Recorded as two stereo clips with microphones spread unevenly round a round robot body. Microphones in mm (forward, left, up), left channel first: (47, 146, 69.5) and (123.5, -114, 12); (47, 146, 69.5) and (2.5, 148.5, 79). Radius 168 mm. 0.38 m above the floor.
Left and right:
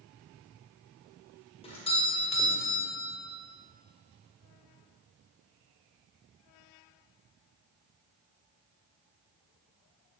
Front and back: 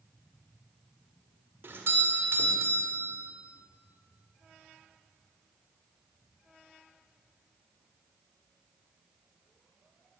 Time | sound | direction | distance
1.6 | a doorbell | straight behind | 1.6 m